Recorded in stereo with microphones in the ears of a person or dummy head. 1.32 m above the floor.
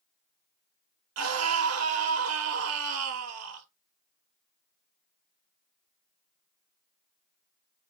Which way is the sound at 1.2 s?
85° right.